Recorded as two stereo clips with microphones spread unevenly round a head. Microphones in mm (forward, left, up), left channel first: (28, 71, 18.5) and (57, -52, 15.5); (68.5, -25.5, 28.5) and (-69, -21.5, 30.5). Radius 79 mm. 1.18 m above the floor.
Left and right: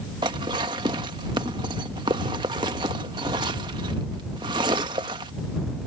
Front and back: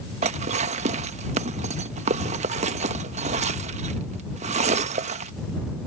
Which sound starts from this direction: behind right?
Dishes clattering, at 0.2 s.